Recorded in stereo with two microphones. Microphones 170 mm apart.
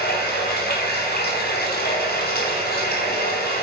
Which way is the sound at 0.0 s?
65° left (ahead or behind).